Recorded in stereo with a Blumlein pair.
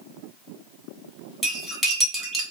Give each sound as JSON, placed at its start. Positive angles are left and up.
{"t": 1.4, "sound": "cutlery clinking", "azimuth_deg": -10, "distance_m": 1.5}